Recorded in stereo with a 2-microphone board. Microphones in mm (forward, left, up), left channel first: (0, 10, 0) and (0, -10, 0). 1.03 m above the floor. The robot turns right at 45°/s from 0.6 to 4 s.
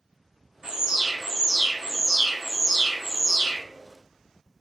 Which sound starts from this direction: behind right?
An alarm, at 0.6 s.